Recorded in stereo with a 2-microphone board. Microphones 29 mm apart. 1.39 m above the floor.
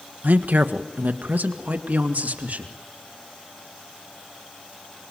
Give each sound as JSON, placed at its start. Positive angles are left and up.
{"t": 0.2, "sound": "a woman speaking", "side_deg": -85, "distance_m": 1.3}